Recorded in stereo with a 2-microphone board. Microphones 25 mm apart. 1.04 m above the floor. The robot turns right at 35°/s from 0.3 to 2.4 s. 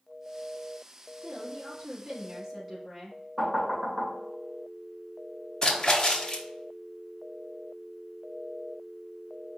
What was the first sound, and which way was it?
A woman speaking, 55° right.